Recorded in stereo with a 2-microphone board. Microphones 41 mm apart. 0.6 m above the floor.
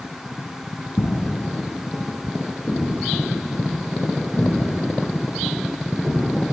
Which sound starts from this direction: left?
Footsteps, at 1.0 s.